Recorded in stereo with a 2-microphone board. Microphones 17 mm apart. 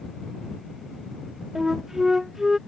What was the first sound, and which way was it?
A flute, 15° right (ahead or behind).